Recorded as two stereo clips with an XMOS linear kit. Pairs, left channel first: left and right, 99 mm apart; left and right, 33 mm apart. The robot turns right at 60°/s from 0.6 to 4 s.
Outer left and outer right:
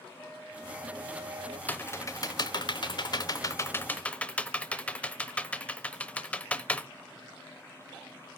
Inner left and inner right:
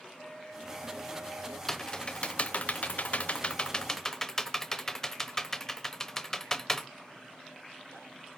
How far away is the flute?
About 3.5 m.